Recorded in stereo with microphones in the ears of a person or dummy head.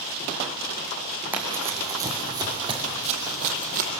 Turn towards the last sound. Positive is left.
turn(degrees=-50)  # may be behind; listen again after turning